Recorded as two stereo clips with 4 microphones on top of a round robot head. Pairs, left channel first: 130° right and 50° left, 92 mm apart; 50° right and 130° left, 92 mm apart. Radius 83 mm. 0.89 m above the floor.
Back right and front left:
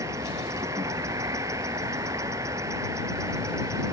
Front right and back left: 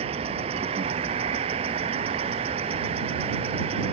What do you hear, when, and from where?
0.0 s an insect: 110° left